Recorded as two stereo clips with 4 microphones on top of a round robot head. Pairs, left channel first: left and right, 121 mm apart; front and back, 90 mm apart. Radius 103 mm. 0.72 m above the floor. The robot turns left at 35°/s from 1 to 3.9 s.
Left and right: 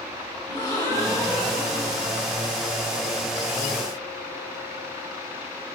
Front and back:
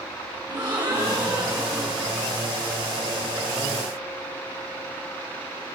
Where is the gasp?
145° left, 3 m; by 2.3 s 100° left, 3 m.